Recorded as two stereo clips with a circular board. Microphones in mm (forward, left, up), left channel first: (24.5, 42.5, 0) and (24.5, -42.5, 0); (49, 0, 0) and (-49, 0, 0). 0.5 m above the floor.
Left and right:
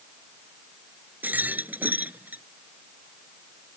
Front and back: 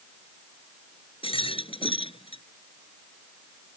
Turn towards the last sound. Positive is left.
turn(degrees=-20)